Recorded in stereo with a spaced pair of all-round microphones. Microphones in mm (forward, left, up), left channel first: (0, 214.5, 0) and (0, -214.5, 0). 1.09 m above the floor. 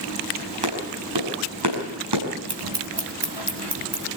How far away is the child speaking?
No child speaking in this recording.